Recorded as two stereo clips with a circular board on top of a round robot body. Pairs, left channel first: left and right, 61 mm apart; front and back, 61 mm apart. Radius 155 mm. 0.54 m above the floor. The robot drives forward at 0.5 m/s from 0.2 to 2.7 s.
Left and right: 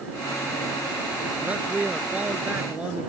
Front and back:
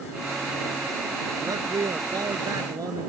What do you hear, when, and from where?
1.4 s a man speaking: 155° right